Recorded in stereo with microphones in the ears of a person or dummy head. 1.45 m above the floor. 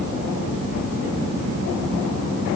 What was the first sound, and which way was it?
Only background noise.